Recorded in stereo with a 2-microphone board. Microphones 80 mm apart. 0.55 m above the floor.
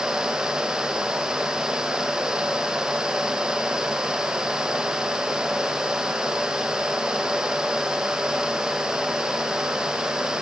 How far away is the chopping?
No chopping in this recording.